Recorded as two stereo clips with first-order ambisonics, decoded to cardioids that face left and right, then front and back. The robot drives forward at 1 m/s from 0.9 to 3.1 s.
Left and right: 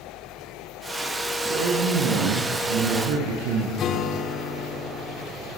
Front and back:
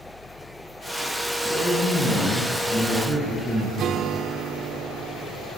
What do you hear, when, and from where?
1.4 s a man speaking: 75° right, 8 m; by 3.7 s 85° right, 8 m
3.8 s a guitar: 135° left, 1.8 m